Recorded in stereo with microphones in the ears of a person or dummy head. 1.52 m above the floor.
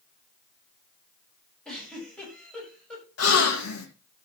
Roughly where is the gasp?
Left.